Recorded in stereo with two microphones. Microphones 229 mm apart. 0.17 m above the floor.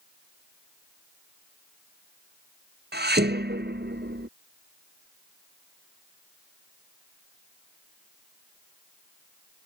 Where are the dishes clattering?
45° right (ahead or behind).